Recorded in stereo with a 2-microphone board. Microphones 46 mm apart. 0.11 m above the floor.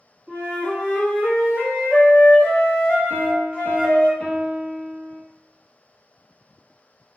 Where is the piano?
25° left (ahead or behind), 0.7 m.